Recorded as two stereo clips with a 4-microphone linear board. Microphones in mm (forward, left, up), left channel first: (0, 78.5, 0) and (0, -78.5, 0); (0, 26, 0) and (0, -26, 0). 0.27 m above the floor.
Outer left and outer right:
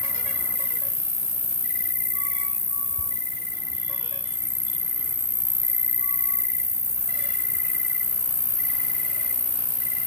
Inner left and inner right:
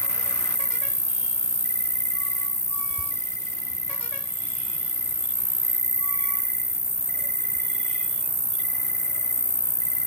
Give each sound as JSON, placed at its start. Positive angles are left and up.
{"t": 0.0, "sound": "an insect", "side_deg": 65, "distance_m": 1.1}